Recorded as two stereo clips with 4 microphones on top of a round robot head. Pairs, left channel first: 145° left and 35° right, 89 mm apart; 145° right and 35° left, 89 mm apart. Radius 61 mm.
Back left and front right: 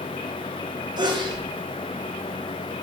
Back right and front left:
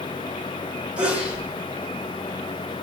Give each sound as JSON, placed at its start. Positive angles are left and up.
{"t": 1.0, "sound": "a sneeze", "azimuth_deg": -35, "distance_m": 2.0}